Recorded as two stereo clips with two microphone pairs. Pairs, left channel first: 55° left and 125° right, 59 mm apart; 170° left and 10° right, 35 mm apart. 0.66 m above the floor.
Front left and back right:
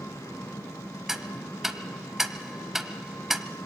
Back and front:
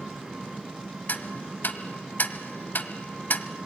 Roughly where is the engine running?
Left.